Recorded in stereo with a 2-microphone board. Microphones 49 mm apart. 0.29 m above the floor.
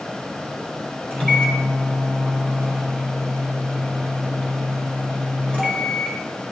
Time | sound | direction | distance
1.1 | a microwave | 25° left (ahead or behind) | 4.5 m